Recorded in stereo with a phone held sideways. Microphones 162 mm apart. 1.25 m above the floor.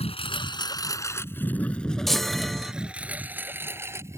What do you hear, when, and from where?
0.0 s a lawn mower: 40° left (ahead or behind); by 4.2 s 15° right (ahead or behind)
2.1 s a chime: centre (ahead or behind)